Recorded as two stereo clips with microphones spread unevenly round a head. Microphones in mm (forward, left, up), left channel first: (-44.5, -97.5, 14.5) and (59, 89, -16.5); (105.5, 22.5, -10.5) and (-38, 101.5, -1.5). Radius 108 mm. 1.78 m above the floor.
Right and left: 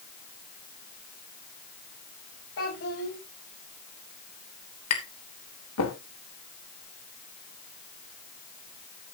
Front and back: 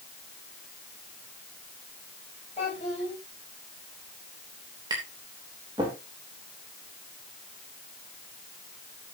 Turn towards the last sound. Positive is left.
turn(degrees=-135)